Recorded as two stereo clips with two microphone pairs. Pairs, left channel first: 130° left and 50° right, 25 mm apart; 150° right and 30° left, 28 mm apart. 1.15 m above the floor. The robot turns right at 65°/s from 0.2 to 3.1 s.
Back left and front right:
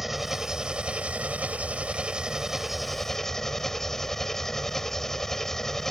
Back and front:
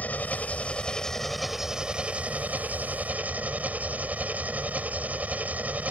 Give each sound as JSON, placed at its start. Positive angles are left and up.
{"t": 0.0, "sound": "an engine running", "azimuth_deg": -140}